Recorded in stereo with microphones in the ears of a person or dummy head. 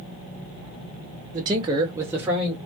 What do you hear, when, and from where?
1.3 s a man speaking: 20° right (ahead or behind), 0.6 m; by 2.6 s 5° right (ahead or behind), 1.1 m